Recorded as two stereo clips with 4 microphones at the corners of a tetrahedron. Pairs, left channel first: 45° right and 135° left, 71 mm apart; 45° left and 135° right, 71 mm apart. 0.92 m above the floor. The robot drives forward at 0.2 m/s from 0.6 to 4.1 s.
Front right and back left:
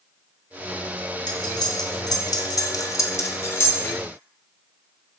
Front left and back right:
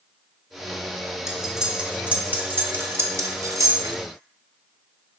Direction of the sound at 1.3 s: 50° right.